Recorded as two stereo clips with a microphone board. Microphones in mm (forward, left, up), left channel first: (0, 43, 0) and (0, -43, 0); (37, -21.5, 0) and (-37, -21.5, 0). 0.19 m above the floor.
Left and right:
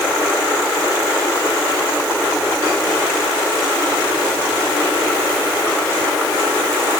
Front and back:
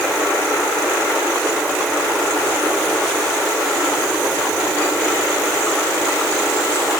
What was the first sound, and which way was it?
Only background noise.